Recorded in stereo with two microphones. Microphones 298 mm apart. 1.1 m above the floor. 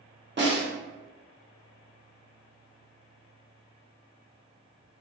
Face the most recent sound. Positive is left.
turn(degrees=-35)  # may be behind; listen again after turning